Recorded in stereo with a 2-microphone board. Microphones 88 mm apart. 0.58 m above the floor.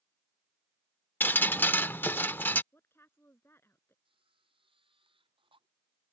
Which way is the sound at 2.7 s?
25° left (ahead or behind).